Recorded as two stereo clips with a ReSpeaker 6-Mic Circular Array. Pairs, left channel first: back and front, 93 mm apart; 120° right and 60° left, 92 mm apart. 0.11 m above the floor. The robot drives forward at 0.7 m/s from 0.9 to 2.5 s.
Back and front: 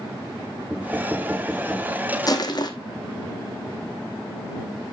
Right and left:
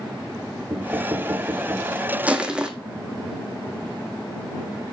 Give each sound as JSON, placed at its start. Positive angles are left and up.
{"t": 0.7, "sound": "knocking", "azimuth_deg": 55, "distance_m": 1.0}
{"t": 2.3, "sound": "crushing", "azimuth_deg": 135, "distance_m": 1.2}